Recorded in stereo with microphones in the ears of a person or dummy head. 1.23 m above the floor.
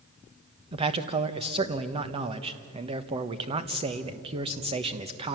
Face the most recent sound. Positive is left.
turn(degrees=-30)  # may be behind; listen again after turning